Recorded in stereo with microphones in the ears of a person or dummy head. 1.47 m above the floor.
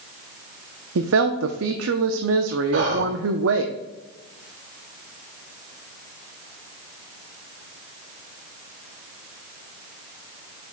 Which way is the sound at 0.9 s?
80° right.